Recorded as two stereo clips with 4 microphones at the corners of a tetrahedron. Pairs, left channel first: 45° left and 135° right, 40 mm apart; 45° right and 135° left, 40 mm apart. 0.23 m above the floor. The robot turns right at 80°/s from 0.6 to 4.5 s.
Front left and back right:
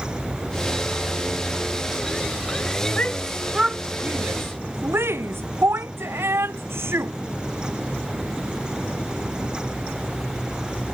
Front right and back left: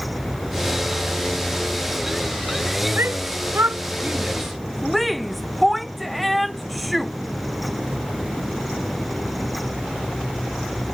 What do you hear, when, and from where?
3.0 s a shout: 100° left; by 7.1 s 135° right